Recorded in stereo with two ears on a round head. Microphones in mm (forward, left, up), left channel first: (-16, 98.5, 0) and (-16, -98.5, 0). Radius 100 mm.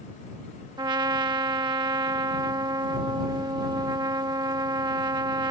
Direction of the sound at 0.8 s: 20° right (ahead or behind).